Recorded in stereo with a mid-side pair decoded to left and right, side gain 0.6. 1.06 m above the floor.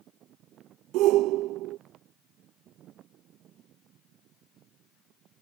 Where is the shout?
70° right.